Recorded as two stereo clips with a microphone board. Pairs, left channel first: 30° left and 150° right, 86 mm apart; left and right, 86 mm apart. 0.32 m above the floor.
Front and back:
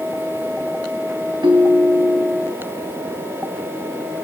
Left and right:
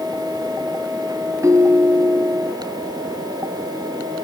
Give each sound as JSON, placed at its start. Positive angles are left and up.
{"t": 1.4, "sound": "a ringtone", "azimuth_deg": -140, "distance_m": 1.0}